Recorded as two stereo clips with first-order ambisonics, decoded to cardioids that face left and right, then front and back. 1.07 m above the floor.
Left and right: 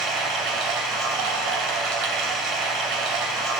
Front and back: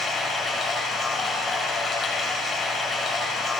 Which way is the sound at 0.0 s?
70° right.